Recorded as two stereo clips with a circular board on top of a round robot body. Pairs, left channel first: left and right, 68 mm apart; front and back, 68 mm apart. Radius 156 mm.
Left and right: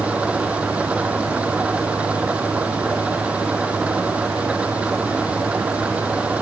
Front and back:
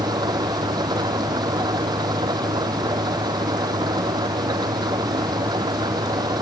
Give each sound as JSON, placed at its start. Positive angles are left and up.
{"t": 0.0, "sound": "an engine running", "azimuth_deg": -165}